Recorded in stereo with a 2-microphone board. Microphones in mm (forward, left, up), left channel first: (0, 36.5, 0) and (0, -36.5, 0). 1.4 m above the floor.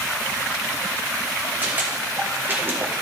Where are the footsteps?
25° right (ahead or behind), 3.5 m; by 2.9 s 35° right (ahead or behind), 2.5 m.